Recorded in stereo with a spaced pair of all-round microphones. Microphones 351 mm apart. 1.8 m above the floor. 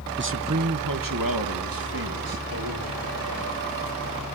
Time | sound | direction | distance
0.2 | a man speaking | 30° right (ahead or behind) | 0.8 m